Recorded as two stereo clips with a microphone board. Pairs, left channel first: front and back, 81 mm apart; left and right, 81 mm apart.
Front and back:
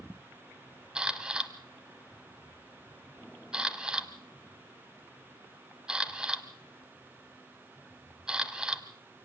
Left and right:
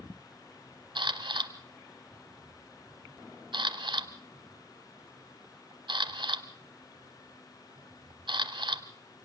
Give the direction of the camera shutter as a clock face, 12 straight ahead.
3 o'clock.